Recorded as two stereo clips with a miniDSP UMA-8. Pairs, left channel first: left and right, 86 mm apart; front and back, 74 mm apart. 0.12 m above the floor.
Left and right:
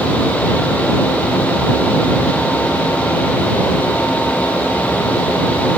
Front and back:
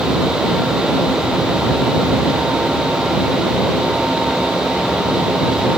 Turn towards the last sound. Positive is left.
No sound to turn to.